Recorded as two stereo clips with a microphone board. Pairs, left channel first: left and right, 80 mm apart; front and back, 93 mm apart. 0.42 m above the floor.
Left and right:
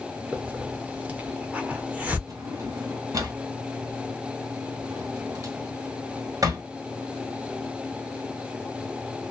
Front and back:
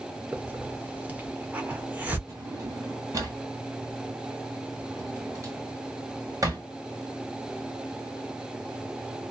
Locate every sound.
0.3 s a hiss: 135° right, 0.8 m
2.3 s a drawer: 130° right, 1.6 m